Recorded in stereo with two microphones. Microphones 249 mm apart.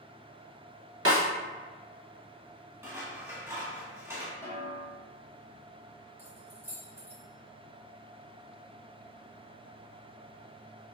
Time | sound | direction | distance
1.1 | a snare drum | 70° right (ahead or behind) | 1.2 m
2.8 | scissors | 10° right (ahead or behind) | 0.9 m
4.4 | a snare drum | 10° left (ahead or behind) | 1.3 m
6.2 | keys jangling | 10° right (ahead or behind) | 0.7 m